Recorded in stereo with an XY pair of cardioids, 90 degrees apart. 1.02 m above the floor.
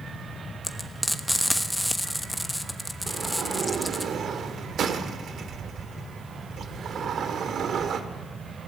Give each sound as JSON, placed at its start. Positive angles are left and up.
{"t": 0.6, "sound": "frying", "azimuth_deg": 5, "distance_m": 1.2}
{"t": 3.1, "sound": "a sliding door", "azimuth_deg": -65, "distance_m": 1.5}